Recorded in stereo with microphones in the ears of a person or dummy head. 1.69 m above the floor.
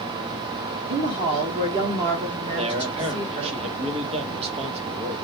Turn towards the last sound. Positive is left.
turn(degrees=-35)  # may be behind; listen again after turning